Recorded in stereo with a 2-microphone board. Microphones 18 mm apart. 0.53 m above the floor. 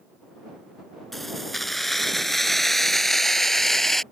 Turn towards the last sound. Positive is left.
turn(degrees=15)  # may be behind; listen again after turning